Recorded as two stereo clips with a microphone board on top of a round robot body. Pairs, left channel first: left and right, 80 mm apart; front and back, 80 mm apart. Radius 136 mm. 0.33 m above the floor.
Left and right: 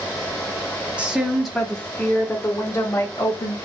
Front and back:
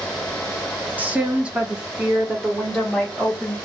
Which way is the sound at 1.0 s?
145° right.